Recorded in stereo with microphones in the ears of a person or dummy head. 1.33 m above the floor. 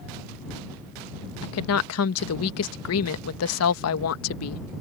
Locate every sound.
1.4 s a woman speaking: 80° left